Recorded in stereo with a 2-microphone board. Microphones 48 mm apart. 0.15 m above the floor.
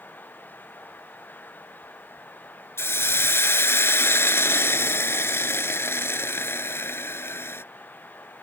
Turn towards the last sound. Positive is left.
turn(degrees=60)  # may be behind; listen again after turning